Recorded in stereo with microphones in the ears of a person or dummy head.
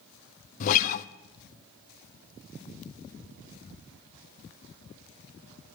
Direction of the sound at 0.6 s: 55° left (ahead or behind).